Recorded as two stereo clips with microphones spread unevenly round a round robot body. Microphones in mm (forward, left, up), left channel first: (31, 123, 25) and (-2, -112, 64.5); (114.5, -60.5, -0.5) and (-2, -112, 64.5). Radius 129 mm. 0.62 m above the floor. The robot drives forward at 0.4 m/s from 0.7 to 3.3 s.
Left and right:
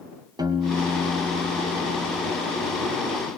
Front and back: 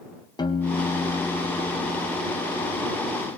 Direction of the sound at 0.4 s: 20° right.